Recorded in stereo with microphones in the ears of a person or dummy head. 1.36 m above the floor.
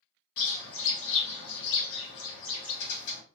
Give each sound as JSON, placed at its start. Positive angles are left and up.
{"t": 0.4, "sound": "a bird", "side_deg": 75, "distance_m": 1.0}